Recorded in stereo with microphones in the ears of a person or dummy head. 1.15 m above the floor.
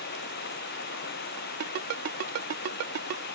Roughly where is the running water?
Left.